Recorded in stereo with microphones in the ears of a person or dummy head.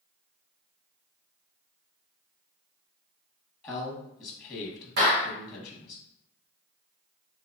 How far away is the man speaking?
About 0.9 m.